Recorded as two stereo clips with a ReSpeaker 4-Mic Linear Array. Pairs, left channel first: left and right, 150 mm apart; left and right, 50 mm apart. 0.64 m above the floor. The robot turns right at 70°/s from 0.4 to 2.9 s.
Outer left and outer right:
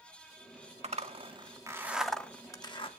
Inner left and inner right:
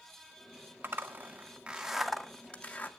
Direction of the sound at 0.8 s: 45° right (ahead or behind).